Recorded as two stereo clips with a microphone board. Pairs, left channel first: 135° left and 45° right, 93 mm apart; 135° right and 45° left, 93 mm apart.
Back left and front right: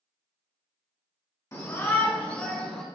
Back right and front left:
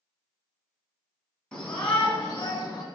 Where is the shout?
150° left, 1.6 m; by 2.8 s 155° right, 1.6 m.